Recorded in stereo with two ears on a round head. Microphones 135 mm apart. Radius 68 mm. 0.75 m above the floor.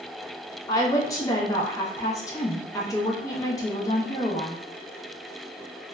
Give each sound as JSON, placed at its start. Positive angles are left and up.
{"t": 0.7, "sound": "a woman speaking", "side_deg": 20, "distance_m": 0.5}